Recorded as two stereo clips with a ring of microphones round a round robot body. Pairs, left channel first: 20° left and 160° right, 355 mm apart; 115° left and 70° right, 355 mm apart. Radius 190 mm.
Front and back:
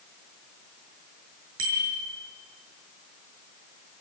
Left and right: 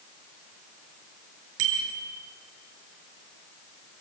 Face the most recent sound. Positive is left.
turn(degrees=-100)